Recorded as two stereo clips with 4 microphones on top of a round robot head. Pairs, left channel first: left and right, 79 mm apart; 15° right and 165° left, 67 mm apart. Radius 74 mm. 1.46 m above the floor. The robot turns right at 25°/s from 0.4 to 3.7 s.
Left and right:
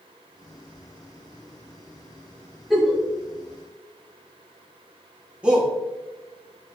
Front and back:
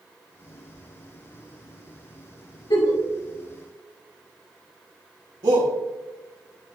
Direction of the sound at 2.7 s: Straight ahead.